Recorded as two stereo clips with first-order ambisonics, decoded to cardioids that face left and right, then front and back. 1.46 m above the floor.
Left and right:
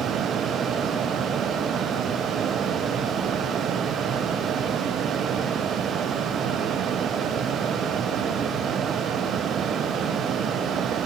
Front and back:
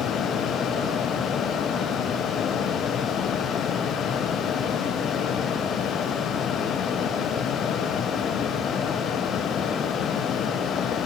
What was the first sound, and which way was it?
Only background noise.